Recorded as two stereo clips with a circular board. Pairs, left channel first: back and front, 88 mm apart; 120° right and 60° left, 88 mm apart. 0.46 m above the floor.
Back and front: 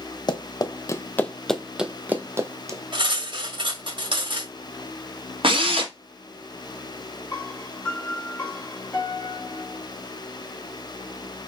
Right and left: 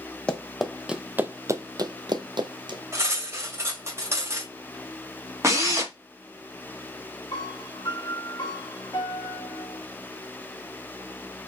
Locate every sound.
0.3 s running footsteps: 165° left, 0.8 m; by 2.8 s 50° left, 1.0 m
2.9 s cutlery clinking: 5° left, 1.3 m
5.4 s a drill: 5° left, 1.7 m
7.3 s a piano: 120° right, 1.5 m